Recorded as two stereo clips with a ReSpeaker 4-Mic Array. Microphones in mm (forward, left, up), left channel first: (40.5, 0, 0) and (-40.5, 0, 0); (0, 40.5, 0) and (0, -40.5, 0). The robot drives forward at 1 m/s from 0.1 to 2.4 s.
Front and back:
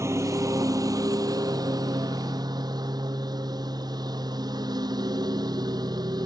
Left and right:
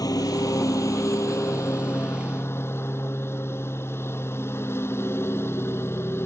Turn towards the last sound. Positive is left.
turn(degrees=150)